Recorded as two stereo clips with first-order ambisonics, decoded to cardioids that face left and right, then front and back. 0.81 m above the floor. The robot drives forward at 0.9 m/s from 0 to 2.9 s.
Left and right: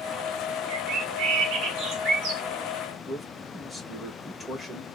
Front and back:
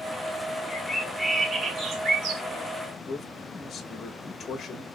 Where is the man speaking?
20° left, 0.8 m.